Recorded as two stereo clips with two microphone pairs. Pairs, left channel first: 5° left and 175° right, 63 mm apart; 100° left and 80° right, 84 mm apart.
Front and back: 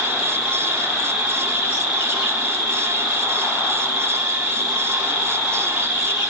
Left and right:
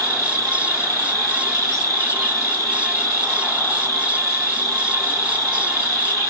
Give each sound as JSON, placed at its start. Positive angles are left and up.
{"t": 0.0, "sound": "an insect", "azimuth_deg": -110, "distance_m": 2.5}